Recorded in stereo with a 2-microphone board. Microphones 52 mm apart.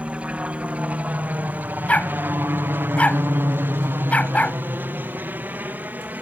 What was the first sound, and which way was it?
A helicopter, 20° right (ahead or behind).